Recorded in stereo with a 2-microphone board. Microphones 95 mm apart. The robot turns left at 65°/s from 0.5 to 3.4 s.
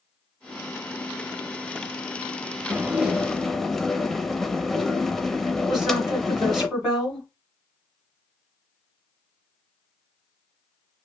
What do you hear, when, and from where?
2.7 s dishes clattering: 15° right (ahead or behind), 0.6 m; by 6.7 s 5° left (ahead or behind), 0.6 m
5.7 s a woman speaking: 10° right (ahead or behind), 2.5 m